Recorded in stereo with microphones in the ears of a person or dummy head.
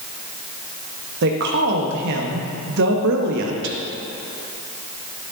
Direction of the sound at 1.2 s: 65° right (ahead or behind).